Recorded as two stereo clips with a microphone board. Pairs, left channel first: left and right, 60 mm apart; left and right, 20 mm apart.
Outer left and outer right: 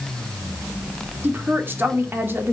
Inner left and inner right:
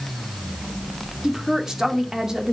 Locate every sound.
1.2 s a woman speaking: 40° right (ahead or behind), 2 m